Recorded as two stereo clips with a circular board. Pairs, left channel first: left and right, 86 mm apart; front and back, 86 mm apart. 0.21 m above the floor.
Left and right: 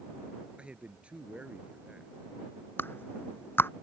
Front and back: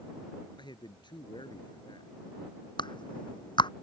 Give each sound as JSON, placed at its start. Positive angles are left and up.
{"t": 0.6, "sound": "a man speaking", "azimuth_deg": -15}
{"t": 2.8, "sound": "a clap", "azimuth_deg": 25}